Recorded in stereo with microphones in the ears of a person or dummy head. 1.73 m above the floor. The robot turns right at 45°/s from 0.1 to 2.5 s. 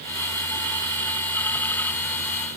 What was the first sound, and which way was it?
Only background noise.